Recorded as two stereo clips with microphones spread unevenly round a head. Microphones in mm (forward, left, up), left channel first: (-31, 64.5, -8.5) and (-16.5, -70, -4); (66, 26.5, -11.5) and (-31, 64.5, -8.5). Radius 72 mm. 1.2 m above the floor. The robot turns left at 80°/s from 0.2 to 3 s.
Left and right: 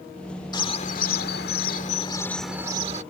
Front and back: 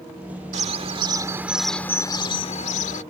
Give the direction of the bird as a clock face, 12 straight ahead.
7 o'clock.